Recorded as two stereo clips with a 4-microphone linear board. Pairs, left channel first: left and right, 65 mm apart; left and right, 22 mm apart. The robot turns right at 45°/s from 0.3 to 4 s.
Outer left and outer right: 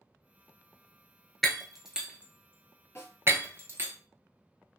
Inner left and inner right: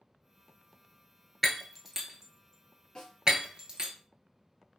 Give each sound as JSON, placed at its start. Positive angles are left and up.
{"t": 1.4, "sound": "breaking glass", "side_deg": 5, "distance_m": 0.7}
{"t": 3.0, "sound": "a snare drum", "side_deg": 40, "distance_m": 2.0}